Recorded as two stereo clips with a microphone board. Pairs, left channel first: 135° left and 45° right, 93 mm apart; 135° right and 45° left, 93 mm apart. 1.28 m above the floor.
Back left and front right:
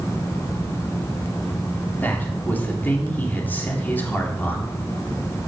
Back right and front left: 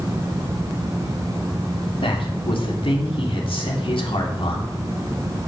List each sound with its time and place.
2.0 s a man speaking: 155° right, 2.5 m